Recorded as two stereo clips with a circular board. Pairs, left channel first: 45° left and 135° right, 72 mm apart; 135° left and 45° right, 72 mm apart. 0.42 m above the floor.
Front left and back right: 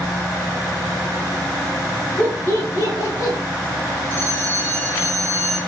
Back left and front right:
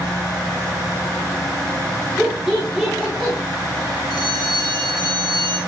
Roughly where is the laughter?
Ahead left.